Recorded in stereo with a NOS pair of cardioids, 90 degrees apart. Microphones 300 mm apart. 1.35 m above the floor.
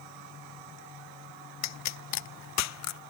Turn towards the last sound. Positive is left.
turn(degrees=65)